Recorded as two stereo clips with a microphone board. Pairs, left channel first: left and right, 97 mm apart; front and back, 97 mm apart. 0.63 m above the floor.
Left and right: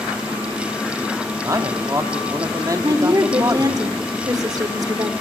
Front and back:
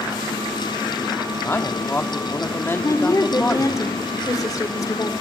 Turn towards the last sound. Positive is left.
turn(degrees=-45)